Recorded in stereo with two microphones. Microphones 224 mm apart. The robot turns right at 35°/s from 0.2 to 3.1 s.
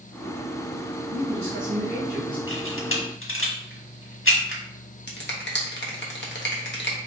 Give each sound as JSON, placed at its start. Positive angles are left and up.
{"t": 1.1, "sound": "a man speaking", "azimuth_deg": -65, "distance_m": 1.8}
{"t": 2.5, "sound": "a camera shutter", "side_deg": 70, "distance_m": 1.4}
{"t": 5.1, "sound": "a finger snap", "side_deg": 55, "distance_m": 1.1}